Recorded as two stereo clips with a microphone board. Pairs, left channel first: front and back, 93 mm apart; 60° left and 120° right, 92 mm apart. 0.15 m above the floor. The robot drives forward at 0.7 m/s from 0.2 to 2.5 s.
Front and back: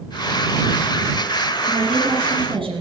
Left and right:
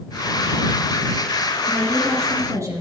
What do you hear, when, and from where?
1.7 s a woman speaking: 175° right, 4.5 m